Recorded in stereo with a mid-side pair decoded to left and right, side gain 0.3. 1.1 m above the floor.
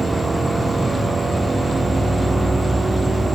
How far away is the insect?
About 2.5 m.